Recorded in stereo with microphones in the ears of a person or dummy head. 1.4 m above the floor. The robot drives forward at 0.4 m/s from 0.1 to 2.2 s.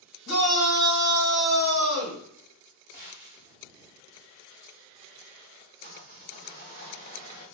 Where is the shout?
75° left (ahead or behind), 1.6 m; by 2.2 s 70° left (ahead or behind), 1.7 m.